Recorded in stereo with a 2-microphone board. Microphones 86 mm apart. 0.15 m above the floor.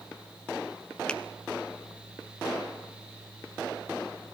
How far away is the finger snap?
About 1.2 m.